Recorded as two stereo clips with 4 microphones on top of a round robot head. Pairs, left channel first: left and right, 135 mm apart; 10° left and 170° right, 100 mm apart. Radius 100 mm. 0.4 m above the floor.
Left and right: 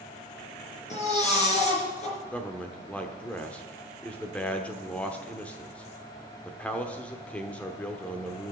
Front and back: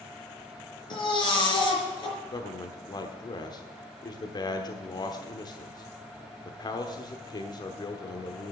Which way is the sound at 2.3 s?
15° left.